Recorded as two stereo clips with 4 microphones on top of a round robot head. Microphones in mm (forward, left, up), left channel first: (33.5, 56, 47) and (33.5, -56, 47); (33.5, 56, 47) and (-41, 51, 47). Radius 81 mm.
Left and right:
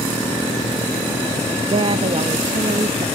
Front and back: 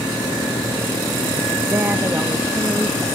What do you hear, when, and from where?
1.7 s a woman speaking: 115° right